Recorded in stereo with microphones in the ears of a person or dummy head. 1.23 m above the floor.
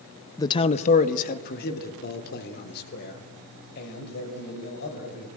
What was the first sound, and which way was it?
A man speaking, 20° left (ahead or behind).